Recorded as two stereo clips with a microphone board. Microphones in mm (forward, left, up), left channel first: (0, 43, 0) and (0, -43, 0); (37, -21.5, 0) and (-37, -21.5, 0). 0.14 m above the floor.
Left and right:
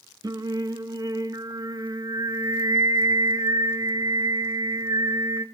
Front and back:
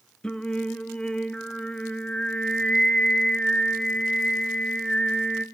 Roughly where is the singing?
Right.